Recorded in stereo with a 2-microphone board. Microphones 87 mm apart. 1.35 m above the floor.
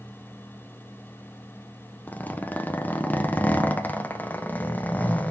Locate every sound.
2.1 s a zipper: 20° left (ahead or behind), 0.6 m